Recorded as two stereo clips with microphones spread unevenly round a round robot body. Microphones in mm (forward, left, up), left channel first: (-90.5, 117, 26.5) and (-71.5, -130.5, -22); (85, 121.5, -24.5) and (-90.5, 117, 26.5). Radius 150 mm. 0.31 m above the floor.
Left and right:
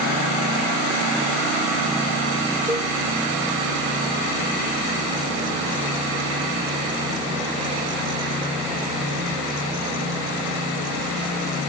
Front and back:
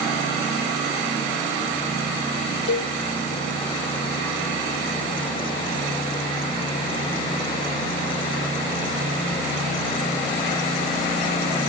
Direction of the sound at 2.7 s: Straight ahead.